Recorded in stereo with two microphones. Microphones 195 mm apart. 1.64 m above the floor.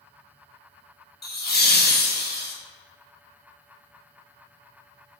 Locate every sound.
1.2 s laughter: 55° left (ahead or behind), 0.6 m